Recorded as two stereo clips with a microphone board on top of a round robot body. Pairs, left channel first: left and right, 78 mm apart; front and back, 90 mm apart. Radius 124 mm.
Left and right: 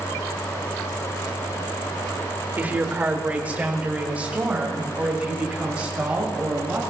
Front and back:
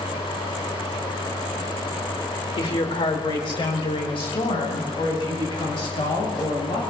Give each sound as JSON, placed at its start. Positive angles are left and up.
{"t": 2.6, "sound": "a woman speaking", "azimuth_deg": -20, "distance_m": 1.7}